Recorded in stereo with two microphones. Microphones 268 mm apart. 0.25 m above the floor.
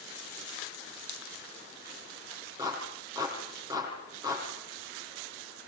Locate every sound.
2.6 s a clap: 15° right (ahead or behind), 7.5 m